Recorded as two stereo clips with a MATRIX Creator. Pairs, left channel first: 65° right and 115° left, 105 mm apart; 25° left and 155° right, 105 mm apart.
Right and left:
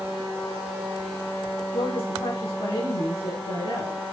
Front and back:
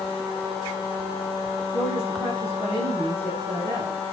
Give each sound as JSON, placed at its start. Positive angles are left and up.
{"t": 1.7, "sound": "a woman speaking", "azimuth_deg": -45, "distance_m": 5.0}